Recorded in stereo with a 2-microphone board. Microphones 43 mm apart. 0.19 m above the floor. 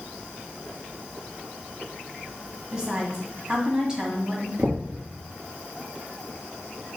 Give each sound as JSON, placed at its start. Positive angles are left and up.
{"t": 2.7, "sound": "a woman speaking", "side_deg": -20, "distance_m": 1.5}
{"t": 4.6, "sound": "knocking", "side_deg": -65, "distance_m": 2.0}